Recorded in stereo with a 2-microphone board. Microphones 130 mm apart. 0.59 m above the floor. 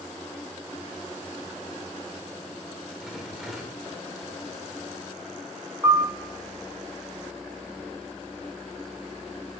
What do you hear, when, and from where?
3.0 s a rattle: centre (ahead or behind), 1.3 m
5.8 s a piano: 25° right (ahead or behind), 0.8 m